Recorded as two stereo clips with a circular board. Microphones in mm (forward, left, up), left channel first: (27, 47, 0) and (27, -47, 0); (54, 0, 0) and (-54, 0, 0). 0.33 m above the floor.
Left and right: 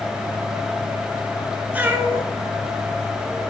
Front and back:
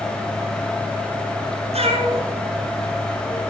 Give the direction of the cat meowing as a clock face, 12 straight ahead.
5 o'clock.